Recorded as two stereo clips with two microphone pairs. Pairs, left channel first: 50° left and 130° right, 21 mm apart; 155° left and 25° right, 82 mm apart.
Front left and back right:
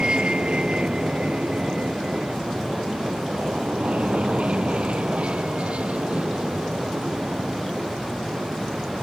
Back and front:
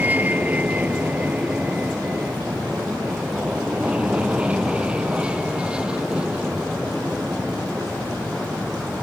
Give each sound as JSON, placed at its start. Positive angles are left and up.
{"t": 0.0, "sound": "an aircraft", "azimuth_deg": -90}